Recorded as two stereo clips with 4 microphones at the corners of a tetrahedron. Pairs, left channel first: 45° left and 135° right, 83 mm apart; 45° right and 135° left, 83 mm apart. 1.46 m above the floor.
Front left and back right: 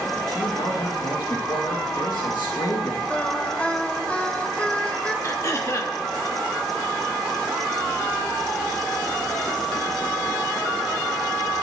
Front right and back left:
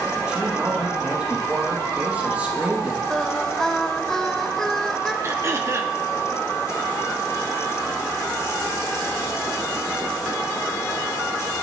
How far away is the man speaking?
About 2.5 m.